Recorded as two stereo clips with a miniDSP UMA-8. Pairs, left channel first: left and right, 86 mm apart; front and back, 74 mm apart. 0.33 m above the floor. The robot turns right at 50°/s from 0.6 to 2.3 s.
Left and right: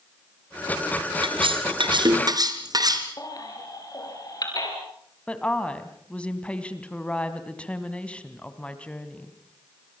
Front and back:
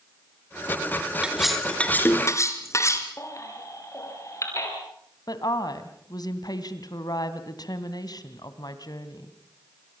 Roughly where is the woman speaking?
Ahead.